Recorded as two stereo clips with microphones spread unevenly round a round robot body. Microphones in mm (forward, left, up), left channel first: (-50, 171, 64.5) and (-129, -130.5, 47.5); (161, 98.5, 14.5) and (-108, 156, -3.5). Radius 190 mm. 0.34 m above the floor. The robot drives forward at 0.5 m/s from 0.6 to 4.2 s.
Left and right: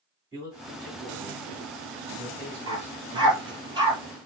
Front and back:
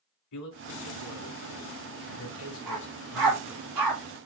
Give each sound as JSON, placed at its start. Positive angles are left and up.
{"t": 0.3, "sound": "a man speaking", "azimuth_deg": -25, "distance_m": 3.5}
{"t": 2.7, "sound": "a dog barking", "azimuth_deg": 180, "distance_m": 2.5}